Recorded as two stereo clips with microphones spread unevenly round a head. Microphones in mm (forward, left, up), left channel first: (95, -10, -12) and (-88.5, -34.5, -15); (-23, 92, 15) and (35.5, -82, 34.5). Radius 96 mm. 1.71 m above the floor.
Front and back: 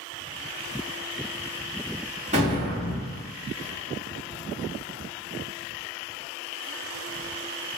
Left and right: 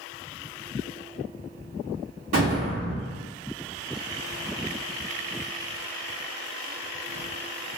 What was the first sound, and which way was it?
An explosion, 120° right.